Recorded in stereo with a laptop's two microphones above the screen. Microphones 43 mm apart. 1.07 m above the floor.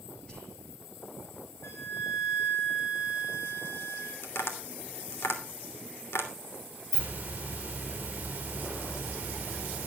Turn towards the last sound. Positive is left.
turn(degrees=-25)  # may be behind; listen again after turning